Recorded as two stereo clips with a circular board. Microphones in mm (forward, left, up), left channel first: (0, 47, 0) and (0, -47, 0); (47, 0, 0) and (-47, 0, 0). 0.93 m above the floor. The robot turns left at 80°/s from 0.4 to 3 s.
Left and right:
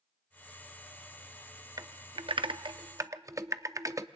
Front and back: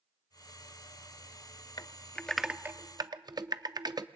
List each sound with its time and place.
1.8 s typing on a keyboard: 45° right, 0.5 m; by 4.1 s 140° right, 0.5 m